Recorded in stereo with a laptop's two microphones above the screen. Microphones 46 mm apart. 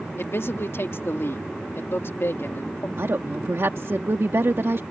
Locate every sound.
0.2 s a man speaking: 60° left (ahead or behind)
3.0 s a woman speaking: 65° right (ahead or behind)